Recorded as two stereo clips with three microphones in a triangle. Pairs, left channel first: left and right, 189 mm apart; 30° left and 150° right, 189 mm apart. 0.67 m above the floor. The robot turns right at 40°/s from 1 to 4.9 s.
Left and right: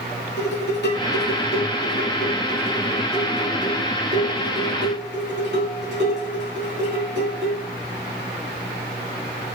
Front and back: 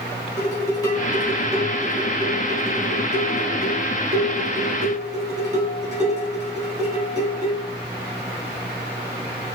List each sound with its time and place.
0.4 s dishes clattering: 100° left, 4 m; by 7.6 s 100° right, 4 m